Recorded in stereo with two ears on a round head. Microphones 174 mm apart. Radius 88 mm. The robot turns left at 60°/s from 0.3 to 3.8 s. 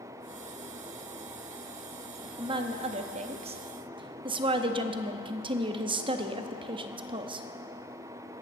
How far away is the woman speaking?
About 0.6 m.